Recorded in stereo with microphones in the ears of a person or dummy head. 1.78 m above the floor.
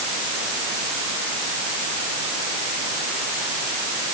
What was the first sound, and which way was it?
Only background noise.